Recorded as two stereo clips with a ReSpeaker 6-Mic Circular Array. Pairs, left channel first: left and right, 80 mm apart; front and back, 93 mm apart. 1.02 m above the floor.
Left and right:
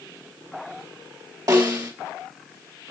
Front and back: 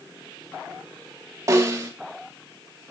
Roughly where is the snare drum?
Behind right.